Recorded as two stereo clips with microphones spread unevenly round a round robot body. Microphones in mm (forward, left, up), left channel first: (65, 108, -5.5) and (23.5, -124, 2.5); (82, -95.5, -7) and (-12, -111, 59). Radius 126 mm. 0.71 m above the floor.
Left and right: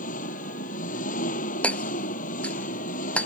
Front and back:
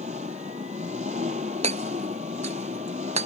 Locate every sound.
0.0 s an engine running: 140° left
1.6 s hammering: 165° left